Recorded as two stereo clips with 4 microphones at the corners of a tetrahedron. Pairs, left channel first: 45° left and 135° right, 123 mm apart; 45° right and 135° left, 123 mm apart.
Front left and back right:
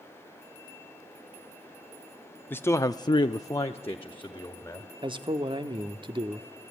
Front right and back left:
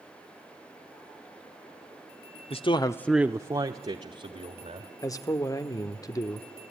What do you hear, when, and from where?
2.5 s a man speaking: 25° right, 1.2 m; by 4.9 s 120° left, 3 m
5.0 s a man speaking: 100° right, 1.1 m